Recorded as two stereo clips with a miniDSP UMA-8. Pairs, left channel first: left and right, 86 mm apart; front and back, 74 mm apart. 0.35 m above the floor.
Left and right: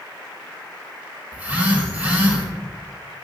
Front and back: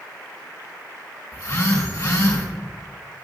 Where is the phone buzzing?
25° right, 3 m.